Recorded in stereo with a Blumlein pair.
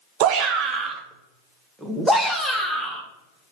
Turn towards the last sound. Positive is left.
turn(degrees=10)